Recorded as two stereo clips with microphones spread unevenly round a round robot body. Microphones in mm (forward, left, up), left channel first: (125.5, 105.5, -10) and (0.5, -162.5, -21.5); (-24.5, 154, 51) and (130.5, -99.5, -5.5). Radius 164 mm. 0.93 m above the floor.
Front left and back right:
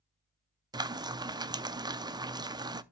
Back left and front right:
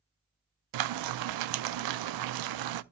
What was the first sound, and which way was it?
Frying, 35° right.